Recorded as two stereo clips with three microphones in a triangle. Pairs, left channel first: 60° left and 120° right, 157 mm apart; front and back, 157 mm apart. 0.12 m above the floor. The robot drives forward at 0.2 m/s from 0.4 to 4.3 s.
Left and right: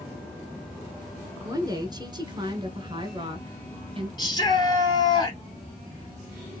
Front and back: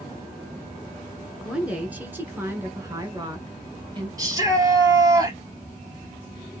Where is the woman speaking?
105° right, 1.1 m; by 4.1 s 145° right, 1.3 m.